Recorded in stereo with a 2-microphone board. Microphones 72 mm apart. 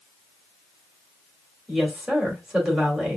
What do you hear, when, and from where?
1.7 s a woman speaking: 10° right (ahead or behind), 2.5 m